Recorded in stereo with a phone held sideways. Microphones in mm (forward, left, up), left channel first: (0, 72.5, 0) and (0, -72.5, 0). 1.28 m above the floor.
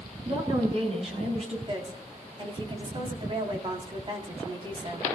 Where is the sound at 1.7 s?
40° right (ahead or behind), 3.5 m.